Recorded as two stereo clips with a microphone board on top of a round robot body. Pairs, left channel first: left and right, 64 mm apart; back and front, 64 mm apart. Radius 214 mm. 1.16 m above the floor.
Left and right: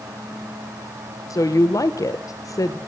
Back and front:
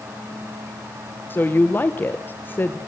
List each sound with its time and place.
1.3 s a woman speaking: 120° left, 1.3 m